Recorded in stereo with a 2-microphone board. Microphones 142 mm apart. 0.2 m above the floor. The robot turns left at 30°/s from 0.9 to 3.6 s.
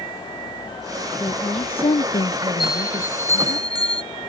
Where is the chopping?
I don't hear chopping.